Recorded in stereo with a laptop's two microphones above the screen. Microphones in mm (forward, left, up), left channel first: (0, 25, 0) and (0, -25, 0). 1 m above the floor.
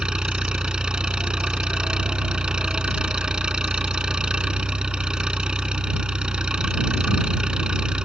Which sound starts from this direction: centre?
An engine running, at 0.0 s.